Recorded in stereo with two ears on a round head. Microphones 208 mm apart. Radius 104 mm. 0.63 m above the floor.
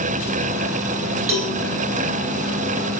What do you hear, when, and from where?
1.3 s a cowbell: 65° right (ahead or behind), 3.5 m